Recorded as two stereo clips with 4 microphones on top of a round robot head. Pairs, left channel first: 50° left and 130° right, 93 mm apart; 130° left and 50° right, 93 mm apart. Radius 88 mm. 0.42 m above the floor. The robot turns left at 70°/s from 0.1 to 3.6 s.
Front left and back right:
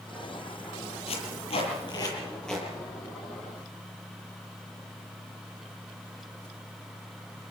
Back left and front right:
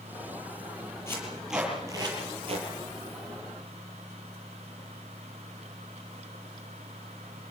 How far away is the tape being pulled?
About 9 m.